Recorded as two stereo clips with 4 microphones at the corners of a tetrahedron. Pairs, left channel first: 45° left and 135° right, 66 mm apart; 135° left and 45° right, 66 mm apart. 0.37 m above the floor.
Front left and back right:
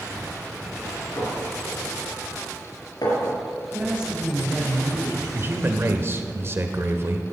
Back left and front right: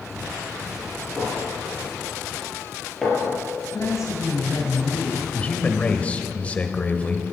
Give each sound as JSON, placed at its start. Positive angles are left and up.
{"t": 1.2, "sound": "a clink", "azimuth_deg": 50, "distance_m": 4.0}
{"t": 3.7, "sound": "a woman speaking", "azimuth_deg": 155, "distance_m": 2.0}
{"t": 5.3, "sound": "a man speaking", "azimuth_deg": -165, "distance_m": 1.0}